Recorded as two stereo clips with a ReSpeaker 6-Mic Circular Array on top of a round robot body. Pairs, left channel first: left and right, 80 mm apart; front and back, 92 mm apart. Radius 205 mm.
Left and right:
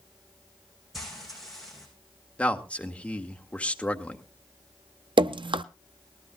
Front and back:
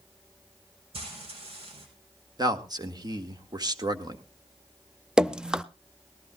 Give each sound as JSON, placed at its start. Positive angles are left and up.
{"t": 0.9, "sound": "frying", "azimuth_deg": 180, "distance_m": 5.0}
{"t": 2.4, "sound": "a man speaking", "azimuth_deg": 160, "distance_m": 1.8}
{"t": 5.2, "sound": "dripping", "azimuth_deg": -100, "distance_m": 0.6}